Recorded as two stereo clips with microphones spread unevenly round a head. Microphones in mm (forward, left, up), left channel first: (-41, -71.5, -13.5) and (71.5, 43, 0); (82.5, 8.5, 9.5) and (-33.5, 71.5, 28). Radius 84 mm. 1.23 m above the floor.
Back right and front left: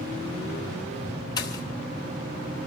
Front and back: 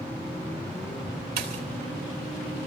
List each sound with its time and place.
1.4 s a pop: 155° left, 3.5 m